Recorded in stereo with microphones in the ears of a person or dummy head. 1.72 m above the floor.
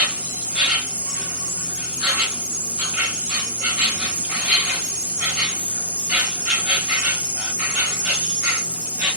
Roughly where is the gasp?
No gasp in this recording.